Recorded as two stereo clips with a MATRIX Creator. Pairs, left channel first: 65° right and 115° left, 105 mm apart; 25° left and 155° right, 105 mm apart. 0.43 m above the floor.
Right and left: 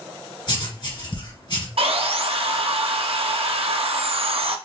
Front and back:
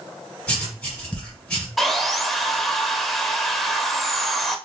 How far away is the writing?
About 2 m.